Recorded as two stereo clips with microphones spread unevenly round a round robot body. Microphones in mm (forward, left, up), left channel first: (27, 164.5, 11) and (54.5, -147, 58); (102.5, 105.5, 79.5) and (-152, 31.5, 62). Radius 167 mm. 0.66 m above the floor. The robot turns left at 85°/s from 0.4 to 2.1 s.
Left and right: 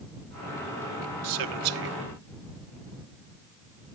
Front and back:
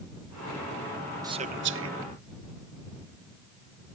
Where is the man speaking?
90° right; by 2.0 s 150° right.